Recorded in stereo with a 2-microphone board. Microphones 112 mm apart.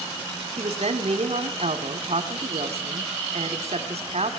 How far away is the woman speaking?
About 2.5 m.